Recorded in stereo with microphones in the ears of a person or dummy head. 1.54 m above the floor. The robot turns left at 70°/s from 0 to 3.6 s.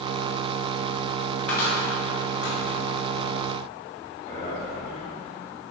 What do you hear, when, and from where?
1.5 s a cupboard door: 10° left (ahead or behind), 0.8 m; by 2.6 s 70° left (ahead or behind), 0.8 m
4.2 s a man speaking: 45° left (ahead or behind), 1.5 m